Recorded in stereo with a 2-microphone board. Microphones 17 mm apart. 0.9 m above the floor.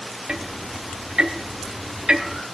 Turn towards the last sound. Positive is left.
turn(degrees=-60)  # may be behind; listen again after turning